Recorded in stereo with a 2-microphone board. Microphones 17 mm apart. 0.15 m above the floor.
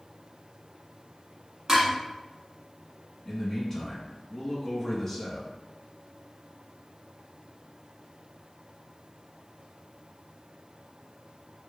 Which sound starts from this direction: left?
A man speaking, at 3.2 s.